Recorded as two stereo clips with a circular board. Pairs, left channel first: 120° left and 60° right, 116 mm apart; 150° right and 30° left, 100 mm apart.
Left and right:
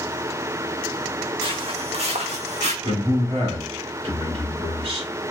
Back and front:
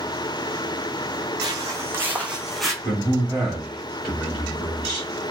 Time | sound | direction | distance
1.4 | footsteps | 20° right | 0.9 m
2.8 | a man speaking | 60° right | 1.8 m